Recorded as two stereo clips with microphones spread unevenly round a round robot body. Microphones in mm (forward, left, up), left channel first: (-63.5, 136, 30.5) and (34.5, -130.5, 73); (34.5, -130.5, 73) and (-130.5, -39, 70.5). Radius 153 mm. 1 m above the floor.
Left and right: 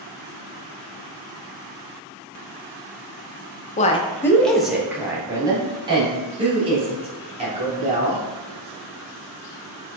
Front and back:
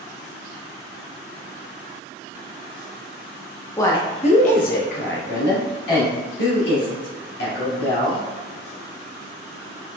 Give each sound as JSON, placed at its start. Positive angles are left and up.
{"t": 3.8, "sound": "a woman speaking", "azimuth_deg": 50, "distance_m": 0.6}